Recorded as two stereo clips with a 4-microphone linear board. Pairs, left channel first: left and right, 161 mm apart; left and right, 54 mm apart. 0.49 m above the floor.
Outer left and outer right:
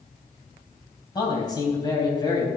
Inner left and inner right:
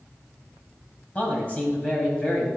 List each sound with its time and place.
1.1 s a man speaking: 25° left (ahead or behind), 3.5 m